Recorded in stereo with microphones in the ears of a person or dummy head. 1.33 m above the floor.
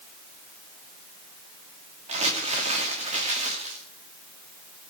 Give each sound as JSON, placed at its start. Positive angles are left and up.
{"t": 2.1, "sound": "crumpling", "side_deg": -30, "distance_m": 2.5}